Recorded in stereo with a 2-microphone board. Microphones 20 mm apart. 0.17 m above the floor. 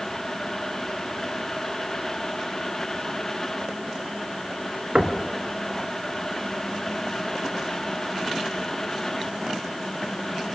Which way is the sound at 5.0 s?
50° right (ahead or behind).